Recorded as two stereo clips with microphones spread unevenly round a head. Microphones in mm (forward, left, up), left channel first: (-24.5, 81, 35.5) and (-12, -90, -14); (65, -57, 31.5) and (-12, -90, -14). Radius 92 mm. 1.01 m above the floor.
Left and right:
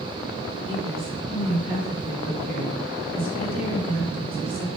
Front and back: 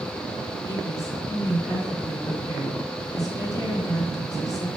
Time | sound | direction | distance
0.7 | a woman speaking | 30° right | 4 m